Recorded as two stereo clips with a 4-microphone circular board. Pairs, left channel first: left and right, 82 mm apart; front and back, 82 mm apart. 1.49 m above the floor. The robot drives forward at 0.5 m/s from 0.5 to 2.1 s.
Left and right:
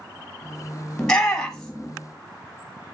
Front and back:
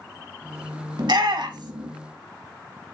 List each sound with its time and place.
1.0 s a shout: 170° left, 1.5 m